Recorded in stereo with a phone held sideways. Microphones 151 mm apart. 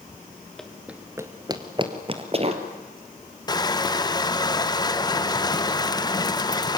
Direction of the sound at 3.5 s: 25° left (ahead or behind).